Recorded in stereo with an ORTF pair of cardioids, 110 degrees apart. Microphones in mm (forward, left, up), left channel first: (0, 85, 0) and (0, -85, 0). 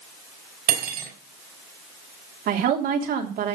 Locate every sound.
0.7 s cutlery clinking: 70° right, 5 m
2.5 s a woman speaking: 65° right, 3 m